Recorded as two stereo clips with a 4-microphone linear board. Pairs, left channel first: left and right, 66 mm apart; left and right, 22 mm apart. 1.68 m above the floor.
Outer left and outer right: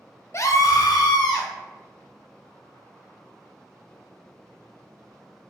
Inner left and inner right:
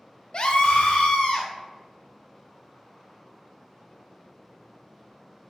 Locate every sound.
0.3 s a scream: 40° left (ahead or behind), 0.5 m; by 1.5 s 85° left, 1.1 m